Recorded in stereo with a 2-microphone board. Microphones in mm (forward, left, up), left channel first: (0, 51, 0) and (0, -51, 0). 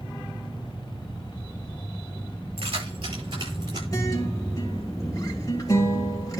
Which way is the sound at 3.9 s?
35° left (ahead or behind).